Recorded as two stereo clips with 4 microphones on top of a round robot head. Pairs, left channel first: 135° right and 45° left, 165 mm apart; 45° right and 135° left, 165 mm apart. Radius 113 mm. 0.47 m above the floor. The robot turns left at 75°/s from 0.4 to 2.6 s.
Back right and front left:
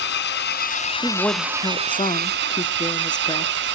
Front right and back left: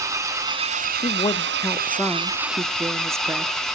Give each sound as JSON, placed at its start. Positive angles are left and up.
{"t": 0.0, "sound": "an engine running", "azimuth_deg": -155, "distance_m": 2.5}
{"t": 1.0, "sound": "a woman speaking", "azimuth_deg": -50, "distance_m": 0.7}